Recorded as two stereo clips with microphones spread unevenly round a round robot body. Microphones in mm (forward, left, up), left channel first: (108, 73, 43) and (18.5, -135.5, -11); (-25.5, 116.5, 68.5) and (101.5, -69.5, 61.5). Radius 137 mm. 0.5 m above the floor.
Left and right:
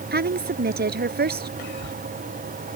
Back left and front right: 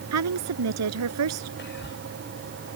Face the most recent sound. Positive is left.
turn(degrees=85)